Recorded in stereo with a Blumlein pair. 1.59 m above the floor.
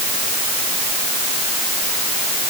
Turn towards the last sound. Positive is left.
No sound to turn to.